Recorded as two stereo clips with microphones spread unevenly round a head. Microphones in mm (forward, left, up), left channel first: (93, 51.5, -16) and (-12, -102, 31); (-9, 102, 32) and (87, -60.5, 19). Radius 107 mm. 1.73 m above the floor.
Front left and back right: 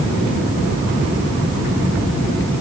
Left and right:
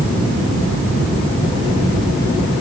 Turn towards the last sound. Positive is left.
No sound to turn to.